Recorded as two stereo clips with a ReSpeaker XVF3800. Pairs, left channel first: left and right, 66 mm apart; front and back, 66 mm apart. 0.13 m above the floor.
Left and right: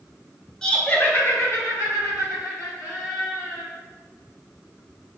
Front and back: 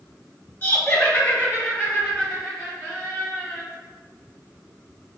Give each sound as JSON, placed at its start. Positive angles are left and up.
{"t": 0.6, "sound": "laughter", "azimuth_deg": 15, "distance_m": 1.3}